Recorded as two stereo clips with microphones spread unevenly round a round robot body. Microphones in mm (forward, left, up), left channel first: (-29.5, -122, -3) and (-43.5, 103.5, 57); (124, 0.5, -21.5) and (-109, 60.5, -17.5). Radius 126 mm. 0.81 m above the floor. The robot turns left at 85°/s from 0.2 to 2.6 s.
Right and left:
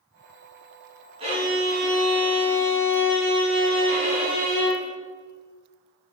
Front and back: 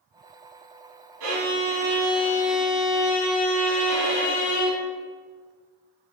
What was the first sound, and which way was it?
A violin, 160° left.